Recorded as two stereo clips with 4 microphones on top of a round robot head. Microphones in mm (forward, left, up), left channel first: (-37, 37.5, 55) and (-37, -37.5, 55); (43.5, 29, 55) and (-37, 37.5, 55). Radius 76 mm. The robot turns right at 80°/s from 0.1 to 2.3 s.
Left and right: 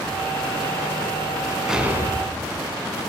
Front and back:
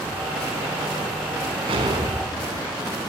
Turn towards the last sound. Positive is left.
turn(degrees=-125)